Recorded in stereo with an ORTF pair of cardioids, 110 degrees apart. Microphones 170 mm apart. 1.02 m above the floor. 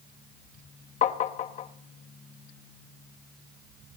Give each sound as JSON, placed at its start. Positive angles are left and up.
{"t": 1.0, "sound": "tapping", "azimuth_deg": 50, "distance_m": 0.8}